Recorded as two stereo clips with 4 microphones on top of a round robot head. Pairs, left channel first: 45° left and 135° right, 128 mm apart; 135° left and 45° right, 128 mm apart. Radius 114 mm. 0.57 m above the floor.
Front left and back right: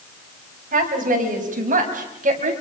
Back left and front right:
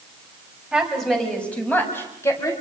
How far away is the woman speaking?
About 4.5 m.